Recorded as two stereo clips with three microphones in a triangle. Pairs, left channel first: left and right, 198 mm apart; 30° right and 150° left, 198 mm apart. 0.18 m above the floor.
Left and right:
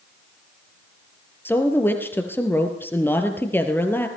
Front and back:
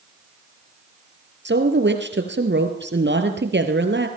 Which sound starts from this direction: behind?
A woman speaking, at 1.4 s.